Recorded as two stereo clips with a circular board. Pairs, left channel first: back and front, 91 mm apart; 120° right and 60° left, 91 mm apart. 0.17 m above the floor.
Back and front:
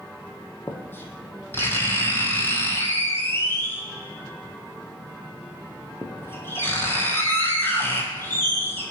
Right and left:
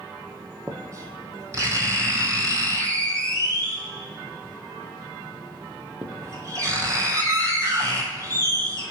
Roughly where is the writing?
Behind left.